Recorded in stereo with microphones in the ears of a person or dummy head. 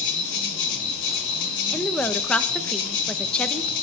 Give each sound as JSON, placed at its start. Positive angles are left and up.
{"t": 0.0, "sound": "an insect", "side_deg": 75, "distance_m": 3.5}
{"t": 1.7, "sound": "a woman speaking", "side_deg": 5, "distance_m": 0.8}